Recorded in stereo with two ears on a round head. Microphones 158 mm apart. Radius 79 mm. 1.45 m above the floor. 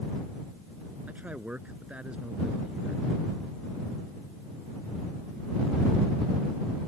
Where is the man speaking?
10° right (ahead or behind); by 3.1 s 5° right (ahead or behind).